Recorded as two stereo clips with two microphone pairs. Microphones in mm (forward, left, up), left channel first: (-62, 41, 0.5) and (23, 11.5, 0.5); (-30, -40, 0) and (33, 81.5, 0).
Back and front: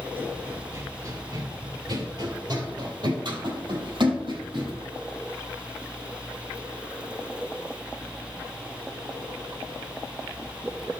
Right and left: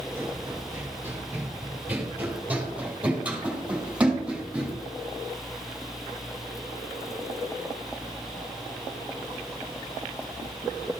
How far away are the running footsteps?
About 1.5 m.